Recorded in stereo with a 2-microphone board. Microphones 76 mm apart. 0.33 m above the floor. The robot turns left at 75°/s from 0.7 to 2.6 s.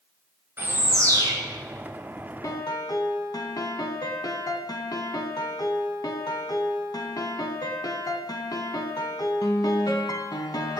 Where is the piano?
50° left (ahead or behind), 0.6 m; by 10.8 s 60° left (ahead or behind), 0.6 m.